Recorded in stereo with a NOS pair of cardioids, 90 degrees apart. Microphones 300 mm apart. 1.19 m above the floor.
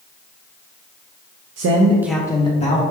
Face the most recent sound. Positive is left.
turn(degrees=25)